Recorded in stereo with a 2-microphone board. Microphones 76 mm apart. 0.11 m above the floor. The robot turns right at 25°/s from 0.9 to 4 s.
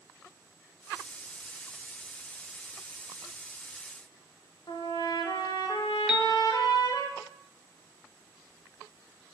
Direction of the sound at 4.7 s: 60° left (ahead or behind).